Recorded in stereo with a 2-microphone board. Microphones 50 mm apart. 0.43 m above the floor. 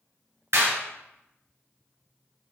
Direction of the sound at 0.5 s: 70° right (ahead or behind).